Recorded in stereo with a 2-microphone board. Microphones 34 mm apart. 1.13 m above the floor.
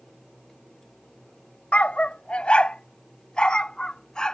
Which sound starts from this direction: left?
A dog barking, at 1.7 s.